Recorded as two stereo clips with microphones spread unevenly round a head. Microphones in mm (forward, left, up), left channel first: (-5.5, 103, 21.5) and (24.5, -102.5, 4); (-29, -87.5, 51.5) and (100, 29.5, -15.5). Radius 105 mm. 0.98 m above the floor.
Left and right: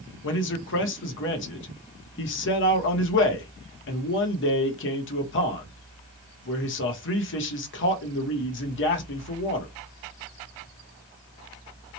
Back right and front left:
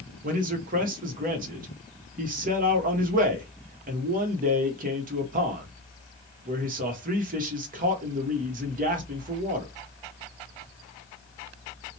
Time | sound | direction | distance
0.2 | a man speaking | 70° left | 0.9 m